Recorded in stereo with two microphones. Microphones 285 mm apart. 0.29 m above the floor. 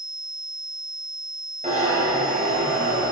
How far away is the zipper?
About 3 m.